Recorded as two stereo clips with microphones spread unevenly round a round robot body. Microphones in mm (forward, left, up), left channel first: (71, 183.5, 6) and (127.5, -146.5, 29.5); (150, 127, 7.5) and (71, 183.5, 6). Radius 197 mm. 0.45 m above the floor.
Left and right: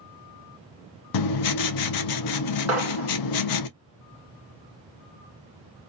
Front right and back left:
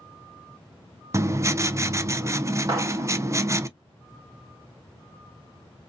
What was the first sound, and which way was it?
Writing, 80° left.